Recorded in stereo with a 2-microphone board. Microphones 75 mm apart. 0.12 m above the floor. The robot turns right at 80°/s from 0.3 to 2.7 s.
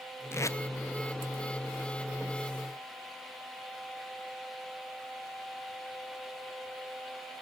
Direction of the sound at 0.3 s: 35° left (ahead or behind).